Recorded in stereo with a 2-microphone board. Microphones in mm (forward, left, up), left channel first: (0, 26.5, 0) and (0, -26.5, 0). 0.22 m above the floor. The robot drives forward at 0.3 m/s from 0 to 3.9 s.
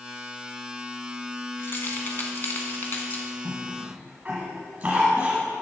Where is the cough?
30° right (ahead or behind), 1.2 m.